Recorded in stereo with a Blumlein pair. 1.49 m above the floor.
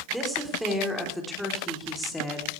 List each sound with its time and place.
0.1 s a woman speaking: 5° right, 4.5 m; by 2.5 s 10° left, 3.5 m